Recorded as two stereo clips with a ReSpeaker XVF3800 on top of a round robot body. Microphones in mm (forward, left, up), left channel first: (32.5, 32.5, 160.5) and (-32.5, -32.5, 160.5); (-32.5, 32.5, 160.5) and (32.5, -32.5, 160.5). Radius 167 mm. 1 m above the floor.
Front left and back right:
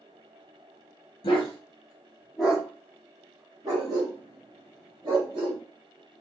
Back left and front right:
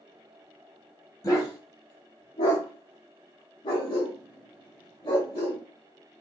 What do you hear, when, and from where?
1.2 s a dog barking: 80° left, 0.8 m; by 5.6 s 175° right, 2.5 m